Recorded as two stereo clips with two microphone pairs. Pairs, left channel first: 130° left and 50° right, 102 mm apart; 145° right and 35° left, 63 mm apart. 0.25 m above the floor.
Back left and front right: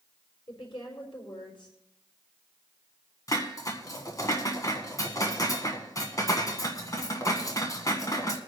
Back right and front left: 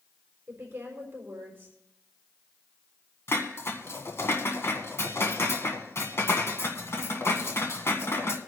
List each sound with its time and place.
0.5 s a woman speaking: 90° left, 5 m
3.3 s dishes clattering: 175° left, 1.6 m